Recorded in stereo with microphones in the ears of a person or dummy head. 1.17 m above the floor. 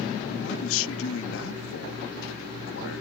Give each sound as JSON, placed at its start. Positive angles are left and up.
{"t": 0.3, "sound": "a man speaking", "side_deg": 75}